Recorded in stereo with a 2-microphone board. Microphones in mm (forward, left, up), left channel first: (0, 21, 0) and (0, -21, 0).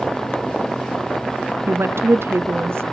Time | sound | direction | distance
1.7 | a woman speaking | 70° right (ahead or behind) | 0.7 m